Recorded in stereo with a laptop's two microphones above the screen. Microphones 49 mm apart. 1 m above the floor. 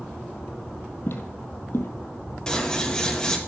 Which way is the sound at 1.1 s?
50° left (ahead or behind).